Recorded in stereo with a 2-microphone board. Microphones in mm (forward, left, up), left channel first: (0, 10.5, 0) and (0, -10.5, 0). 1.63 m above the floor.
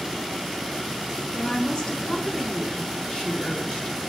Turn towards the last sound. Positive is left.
turn(degrees=40)  # may be behind; listen again after turning